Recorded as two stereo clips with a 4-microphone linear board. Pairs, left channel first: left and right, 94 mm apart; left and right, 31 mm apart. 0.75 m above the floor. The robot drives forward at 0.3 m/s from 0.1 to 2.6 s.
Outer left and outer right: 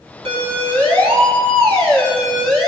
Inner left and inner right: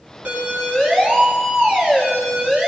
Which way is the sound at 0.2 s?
85° right.